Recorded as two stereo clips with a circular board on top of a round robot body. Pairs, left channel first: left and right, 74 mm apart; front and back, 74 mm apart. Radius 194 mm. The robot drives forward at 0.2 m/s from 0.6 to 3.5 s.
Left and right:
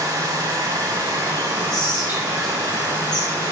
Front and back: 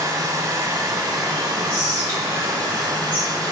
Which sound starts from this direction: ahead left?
Whispering, at 1.7 s.